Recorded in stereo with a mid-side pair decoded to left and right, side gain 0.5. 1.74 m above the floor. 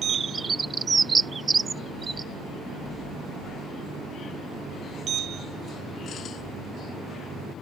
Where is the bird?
25° right.